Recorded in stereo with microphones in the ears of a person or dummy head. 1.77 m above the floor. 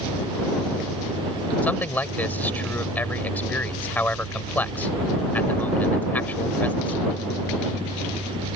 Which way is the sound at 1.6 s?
10° left (ahead or behind).